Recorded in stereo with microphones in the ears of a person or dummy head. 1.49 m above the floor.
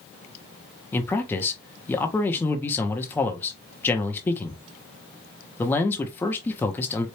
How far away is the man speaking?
About 0.7 m.